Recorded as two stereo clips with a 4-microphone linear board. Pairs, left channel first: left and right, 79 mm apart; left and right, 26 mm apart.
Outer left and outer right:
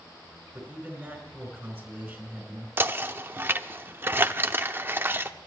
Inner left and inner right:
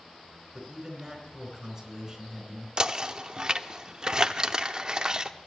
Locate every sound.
0.5 s a man speaking: 20° right (ahead or behind), 4.5 m
2.8 s knocking: 30° right (ahead or behind), 0.6 m